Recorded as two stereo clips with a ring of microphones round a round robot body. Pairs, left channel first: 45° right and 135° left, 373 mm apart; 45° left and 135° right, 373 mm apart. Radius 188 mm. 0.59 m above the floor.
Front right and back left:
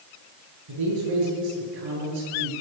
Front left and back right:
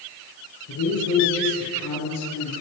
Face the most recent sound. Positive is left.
turn(degrees=100)